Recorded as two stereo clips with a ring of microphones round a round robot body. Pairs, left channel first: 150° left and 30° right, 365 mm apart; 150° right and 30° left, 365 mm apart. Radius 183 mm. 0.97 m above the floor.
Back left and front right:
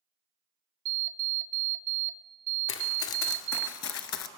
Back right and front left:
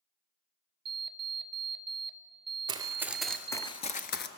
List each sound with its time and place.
0.8 s an alarm clock: 35° right, 1.0 m
2.7 s running footsteps: 105° left, 1.3 m; by 4.3 s 170° left, 1.1 m